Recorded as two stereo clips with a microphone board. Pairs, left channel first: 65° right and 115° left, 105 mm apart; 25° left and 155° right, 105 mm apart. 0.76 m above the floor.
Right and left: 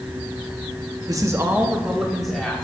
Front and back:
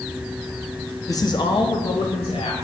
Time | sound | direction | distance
1.1 | a man speaking | 70° left | 1.2 m